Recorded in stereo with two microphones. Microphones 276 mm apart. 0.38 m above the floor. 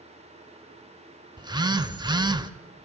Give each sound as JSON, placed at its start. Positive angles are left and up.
{"t": 1.4, "sound": "a phone buzzing", "side_deg": -15, "distance_m": 0.7}